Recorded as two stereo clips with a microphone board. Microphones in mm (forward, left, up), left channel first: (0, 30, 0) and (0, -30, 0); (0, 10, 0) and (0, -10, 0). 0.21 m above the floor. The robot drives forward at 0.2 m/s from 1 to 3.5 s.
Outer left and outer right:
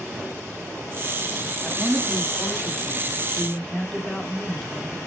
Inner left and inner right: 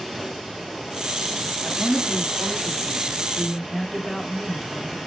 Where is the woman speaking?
10° left (ahead or behind), 1.3 m.